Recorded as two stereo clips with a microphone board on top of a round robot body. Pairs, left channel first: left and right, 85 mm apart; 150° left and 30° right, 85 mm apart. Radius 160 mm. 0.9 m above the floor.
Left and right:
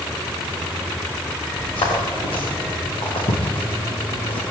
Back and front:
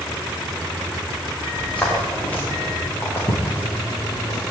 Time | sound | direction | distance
1.5 | footsteps | 75° left | 7.5 m